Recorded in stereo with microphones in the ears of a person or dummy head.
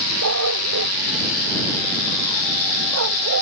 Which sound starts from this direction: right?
A dog barking, at 0.2 s.